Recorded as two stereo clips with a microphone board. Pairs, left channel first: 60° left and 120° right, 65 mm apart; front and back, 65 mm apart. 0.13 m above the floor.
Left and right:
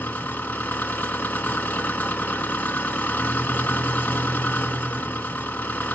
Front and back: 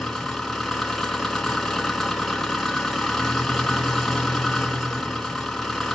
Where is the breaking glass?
I don't hear breaking glass.